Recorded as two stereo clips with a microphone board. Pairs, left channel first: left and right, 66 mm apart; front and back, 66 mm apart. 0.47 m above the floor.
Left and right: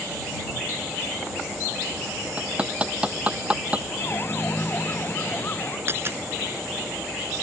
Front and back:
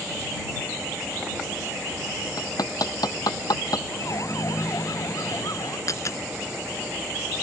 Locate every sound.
2.4 s hammering: 20° right
3.9 s a siren: 35° left; by 5.8 s 30° left
5.9 s a dropped coin: 40° right